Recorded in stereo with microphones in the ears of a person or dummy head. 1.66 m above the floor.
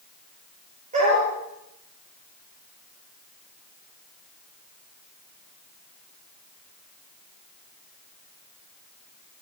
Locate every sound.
0.9 s a dog barking: 45° right (ahead or behind), 9.5 m